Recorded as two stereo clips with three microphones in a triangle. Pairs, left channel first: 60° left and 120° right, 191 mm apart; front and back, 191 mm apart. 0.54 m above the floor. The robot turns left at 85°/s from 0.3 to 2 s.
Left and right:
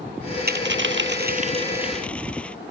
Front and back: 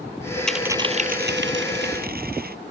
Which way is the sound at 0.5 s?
85° right.